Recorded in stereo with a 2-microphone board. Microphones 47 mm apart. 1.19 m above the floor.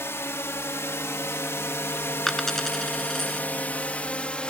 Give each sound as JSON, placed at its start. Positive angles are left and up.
{"t": 0.0, "sound": "a drone", "side_deg": 65}
{"t": 2.3, "sound": "a dropped coin", "side_deg": 5}